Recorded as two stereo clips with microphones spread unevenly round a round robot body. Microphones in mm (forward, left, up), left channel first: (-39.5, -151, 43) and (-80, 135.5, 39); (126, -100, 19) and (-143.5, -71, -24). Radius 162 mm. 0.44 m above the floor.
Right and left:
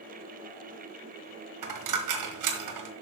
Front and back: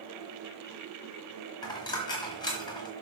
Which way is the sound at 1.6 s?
75° left.